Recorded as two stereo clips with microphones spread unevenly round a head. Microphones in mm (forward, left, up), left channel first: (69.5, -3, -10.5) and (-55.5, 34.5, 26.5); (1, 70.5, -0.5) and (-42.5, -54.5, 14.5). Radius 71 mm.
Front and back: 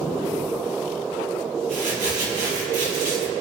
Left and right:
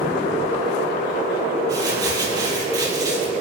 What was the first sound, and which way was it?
Crumpling, 170° right.